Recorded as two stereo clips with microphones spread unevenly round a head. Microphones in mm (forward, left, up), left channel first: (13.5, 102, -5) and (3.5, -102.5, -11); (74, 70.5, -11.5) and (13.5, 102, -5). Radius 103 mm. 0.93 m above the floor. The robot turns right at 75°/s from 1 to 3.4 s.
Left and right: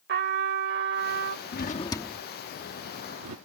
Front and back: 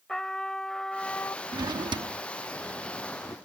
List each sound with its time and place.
0.1 s a trumpet: 115° right; by 1.4 s 80° right
1.5 s a drawer: 130° left; by 3.4 s 90° right